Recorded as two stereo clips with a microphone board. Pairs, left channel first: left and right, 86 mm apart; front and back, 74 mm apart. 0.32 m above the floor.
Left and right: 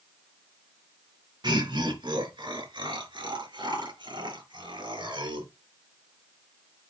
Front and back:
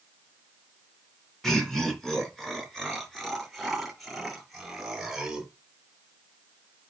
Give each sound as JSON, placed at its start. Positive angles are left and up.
{"t": 1.4, "sound": "laughter", "azimuth_deg": -85, "distance_m": 4.0}